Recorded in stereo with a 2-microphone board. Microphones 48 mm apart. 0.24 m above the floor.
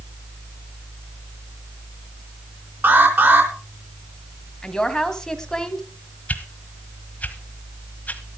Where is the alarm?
50° right (ahead or behind), 4 m.